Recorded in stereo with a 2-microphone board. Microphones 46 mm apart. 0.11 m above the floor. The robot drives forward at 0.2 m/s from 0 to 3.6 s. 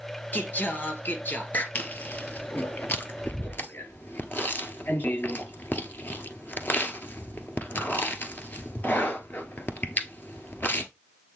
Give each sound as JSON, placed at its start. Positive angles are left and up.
{"t": 0.3, "sound": "singing", "side_deg": 45, "distance_m": 1.4}
{"t": 1.8, "sound": "chewing", "side_deg": 40, "distance_m": 1.2}